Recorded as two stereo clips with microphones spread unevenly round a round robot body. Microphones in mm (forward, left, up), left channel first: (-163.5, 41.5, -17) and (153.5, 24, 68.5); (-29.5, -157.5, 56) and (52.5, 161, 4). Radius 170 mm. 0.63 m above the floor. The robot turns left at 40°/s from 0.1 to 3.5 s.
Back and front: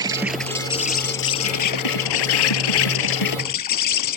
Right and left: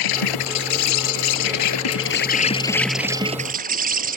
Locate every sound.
0.0 s an insect: 80° right; by 4.2 s 145° left